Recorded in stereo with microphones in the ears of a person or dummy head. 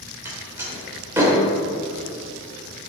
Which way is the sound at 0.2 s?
15° right (ahead or behind).